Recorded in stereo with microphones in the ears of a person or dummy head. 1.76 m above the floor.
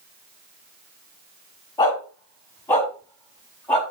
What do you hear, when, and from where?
1.8 s a dog barking: 25° left (ahead or behind), 4.5 m; by 3.8 s 15° left (ahead or behind), 5 m